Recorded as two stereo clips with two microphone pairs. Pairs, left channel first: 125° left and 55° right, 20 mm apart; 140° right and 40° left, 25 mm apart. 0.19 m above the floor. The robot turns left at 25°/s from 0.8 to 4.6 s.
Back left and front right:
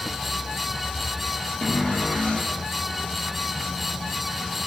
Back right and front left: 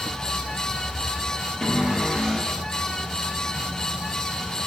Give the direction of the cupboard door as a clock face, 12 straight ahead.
6 o'clock.